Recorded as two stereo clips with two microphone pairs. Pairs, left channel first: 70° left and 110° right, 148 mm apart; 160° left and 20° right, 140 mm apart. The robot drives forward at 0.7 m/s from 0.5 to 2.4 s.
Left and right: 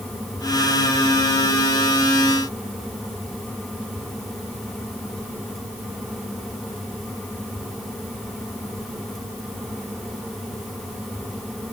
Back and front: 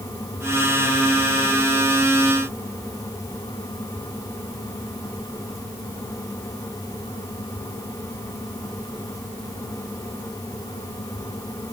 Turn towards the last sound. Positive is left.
No sound to turn to.